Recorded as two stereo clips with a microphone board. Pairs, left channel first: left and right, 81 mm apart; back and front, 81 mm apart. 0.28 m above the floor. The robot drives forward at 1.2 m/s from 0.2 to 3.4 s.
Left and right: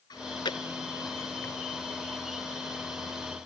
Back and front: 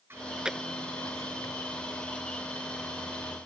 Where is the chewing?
60° left; by 2.4 s 160° left.